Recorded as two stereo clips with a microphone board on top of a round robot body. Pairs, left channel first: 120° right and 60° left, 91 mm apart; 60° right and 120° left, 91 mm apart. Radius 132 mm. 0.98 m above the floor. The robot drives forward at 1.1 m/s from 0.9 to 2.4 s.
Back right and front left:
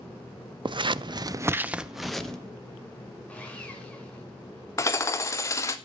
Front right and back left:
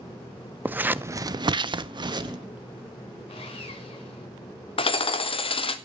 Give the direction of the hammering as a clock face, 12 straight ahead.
2 o'clock.